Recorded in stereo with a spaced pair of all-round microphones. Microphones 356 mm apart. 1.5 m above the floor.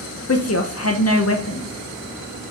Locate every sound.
0.3 s a woman speaking: 40° left (ahead or behind), 0.6 m